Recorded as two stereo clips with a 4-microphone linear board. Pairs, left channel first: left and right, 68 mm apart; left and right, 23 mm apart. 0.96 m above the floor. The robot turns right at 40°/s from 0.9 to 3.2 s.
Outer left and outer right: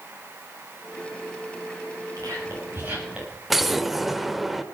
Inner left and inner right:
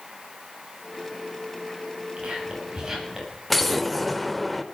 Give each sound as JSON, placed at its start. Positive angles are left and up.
{"t": 2.2, "sound": "whispering", "side_deg": -55, "distance_m": 6.5}
{"t": 3.5, "sound": "an explosion", "side_deg": -5, "distance_m": 1.0}